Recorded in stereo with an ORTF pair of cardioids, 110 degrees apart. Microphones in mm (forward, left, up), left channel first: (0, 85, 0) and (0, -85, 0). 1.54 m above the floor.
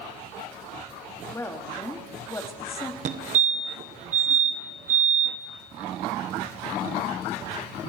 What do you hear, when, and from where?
1.3 s a woman speaking: 15° left, 3 m
3.0 s a fire alarm: 50° right, 1.7 m